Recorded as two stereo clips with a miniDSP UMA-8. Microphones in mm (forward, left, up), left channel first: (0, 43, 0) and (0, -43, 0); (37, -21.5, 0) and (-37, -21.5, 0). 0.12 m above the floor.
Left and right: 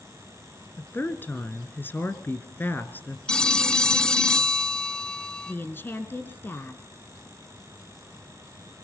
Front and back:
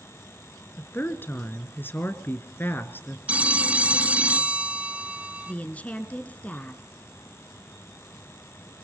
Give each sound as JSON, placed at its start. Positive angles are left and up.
{"t": 0.8, "sound": "a woman speaking", "azimuth_deg": 40, "distance_m": 1.5}
{"t": 3.3, "sound": "a phone ringing", "azimuth_deg": 150, "distance_m": 0.9}
{"t": 5.5, "sound": "a woman speaking", "azimuth_deg": 50, "distance_m": 1.2}